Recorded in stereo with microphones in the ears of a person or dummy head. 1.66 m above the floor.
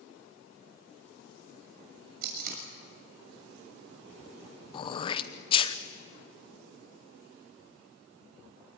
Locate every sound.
2.2 s tape being pulled: 50° right (ahead or behind), 6.5 m
4.7 s throat clearing: 30° left (ahead or behind), 0.9 m